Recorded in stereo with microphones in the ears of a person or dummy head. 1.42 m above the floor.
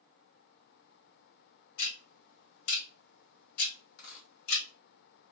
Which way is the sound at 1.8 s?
65° left (ahead or behind).